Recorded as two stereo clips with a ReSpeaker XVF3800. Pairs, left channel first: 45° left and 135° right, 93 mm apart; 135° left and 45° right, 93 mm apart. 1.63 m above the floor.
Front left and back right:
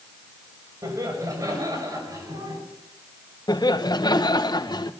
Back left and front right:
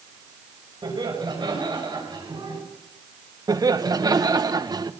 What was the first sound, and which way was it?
Laughter, 80° right.